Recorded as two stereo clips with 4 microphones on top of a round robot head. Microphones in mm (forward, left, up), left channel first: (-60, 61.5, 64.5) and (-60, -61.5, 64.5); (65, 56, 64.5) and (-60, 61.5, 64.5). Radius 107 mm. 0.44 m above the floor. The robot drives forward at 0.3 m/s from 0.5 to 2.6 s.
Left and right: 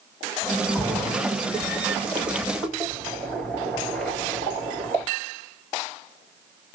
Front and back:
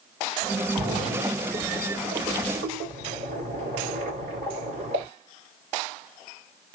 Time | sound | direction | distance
0.8 | a splash | 175° left | 3 m